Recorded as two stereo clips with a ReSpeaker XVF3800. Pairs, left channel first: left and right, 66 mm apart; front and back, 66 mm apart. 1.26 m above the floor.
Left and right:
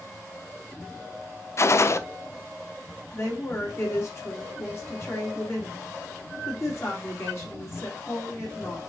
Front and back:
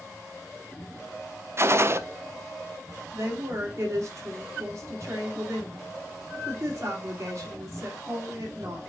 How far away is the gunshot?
About 0.5 m.